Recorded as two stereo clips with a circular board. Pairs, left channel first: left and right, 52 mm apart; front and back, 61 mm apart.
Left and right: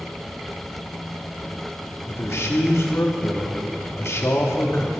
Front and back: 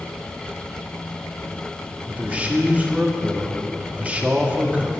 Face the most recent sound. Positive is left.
turn(degrees=115)